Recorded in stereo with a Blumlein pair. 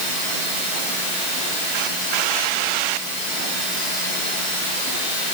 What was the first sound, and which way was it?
Only background noise.